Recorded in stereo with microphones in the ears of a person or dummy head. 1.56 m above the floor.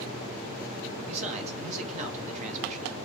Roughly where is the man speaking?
Right.